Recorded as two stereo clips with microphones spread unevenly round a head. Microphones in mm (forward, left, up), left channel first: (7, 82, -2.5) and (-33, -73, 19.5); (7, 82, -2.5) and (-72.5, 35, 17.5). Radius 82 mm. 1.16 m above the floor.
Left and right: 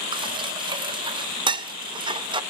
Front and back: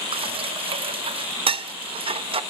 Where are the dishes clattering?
165° right, 0.9 m.